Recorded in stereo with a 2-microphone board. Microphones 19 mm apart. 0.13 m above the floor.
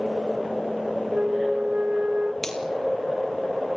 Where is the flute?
80° right, 1.0 m.